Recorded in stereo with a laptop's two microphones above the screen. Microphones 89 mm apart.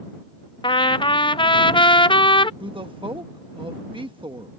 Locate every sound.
0.6 s a trumpet: 60° left (ahead or behind)
2.6 s a woman speaking: 65° right (ahead or behind)